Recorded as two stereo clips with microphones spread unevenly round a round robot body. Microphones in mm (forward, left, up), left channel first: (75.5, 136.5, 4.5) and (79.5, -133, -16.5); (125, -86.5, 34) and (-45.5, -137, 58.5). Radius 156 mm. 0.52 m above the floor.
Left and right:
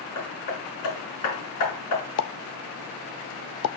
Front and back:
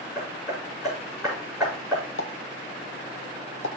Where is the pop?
55° left, 0.6 m.